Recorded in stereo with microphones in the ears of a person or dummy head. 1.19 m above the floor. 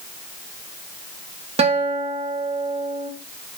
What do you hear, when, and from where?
1.6 s a guitar: 30° right (ahead or behind), 1.8 m